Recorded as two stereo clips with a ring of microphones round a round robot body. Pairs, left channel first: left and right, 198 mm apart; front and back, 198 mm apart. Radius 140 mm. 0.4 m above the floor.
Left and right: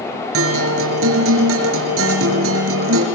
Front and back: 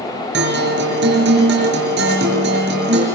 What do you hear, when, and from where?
0.3 s a guitar: 125° right, 5 m